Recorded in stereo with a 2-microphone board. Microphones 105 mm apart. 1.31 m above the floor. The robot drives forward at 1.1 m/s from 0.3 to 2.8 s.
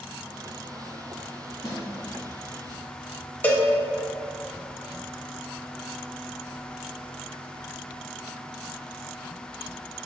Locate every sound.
1.6 s a snare drum: 35° left (ahead or behind), 1.4 m; by 1.8 s 30° left (ahead or behind), 1.4 m
3.4 s a cowbell: 15° left (ahead or behind), 0.7 m